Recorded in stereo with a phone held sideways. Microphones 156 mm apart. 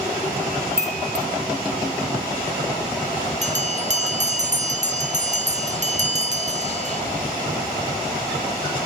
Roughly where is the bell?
Right.